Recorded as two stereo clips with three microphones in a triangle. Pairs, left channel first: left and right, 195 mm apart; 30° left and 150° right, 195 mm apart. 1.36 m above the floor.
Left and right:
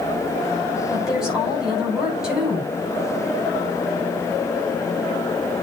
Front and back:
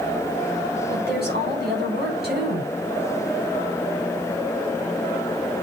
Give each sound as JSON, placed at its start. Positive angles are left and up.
{"t": 0.9, "sound": "a woman speaking", "azimuth_deg": -175, "distance_m": 9.0}